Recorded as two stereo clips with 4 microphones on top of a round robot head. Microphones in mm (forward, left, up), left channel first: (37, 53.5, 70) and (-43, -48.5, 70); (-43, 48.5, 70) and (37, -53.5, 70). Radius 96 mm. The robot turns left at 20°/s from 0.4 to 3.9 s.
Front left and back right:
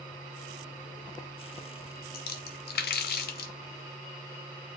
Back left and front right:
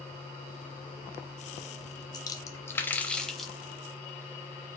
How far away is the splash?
About 0.6 m.